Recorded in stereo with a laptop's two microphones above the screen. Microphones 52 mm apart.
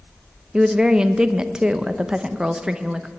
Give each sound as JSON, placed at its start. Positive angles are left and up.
{"t": 0.5, "sound": "a woman speaking", "side_deg": -15, "distance_m": 0.7}